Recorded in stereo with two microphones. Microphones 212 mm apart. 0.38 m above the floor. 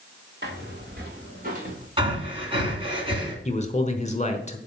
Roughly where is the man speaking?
Left.